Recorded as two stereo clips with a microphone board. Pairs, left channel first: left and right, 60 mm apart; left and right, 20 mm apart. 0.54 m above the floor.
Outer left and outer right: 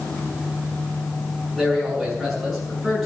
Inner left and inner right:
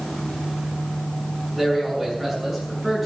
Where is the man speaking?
5° right (ahead or behind), 8 m.